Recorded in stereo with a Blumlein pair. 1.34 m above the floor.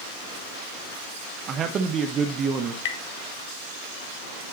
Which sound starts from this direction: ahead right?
A man speaking, at 1.5 s.